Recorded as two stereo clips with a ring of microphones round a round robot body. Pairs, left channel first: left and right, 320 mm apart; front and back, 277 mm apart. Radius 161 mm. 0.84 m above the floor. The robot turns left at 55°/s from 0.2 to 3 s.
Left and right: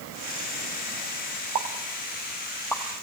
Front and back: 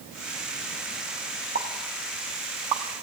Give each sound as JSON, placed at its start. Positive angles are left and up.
{"t": 1.6, "sound": "a pop", "azimuth_deg": -120, "distance_m": 1.2}